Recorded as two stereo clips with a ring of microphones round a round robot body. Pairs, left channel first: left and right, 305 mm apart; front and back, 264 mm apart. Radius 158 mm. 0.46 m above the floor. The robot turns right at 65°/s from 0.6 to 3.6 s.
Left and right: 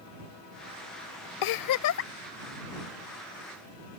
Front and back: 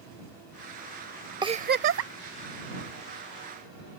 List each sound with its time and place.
1.4 s a giggle: 105° left; by 2.1 s 150° left